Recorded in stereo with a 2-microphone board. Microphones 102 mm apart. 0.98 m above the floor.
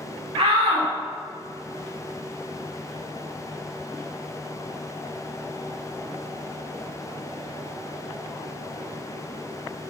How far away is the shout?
About 3 m.